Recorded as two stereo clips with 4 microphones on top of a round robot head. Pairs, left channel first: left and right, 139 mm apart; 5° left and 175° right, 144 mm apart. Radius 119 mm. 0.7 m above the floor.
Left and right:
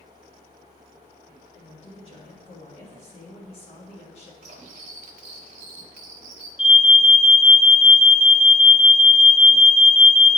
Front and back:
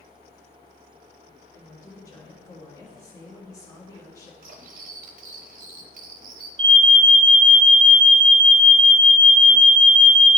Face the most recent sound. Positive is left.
turn(degrees=135)